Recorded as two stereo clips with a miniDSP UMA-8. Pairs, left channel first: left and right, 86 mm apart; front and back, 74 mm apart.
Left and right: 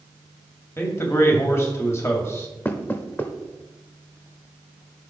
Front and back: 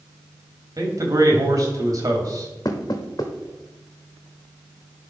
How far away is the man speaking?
About 2 m.